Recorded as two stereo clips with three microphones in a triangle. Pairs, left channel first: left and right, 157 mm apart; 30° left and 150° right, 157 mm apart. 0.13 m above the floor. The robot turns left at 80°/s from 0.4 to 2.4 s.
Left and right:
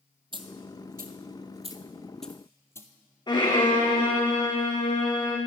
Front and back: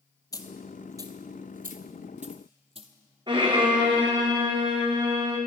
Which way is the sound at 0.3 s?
35° right.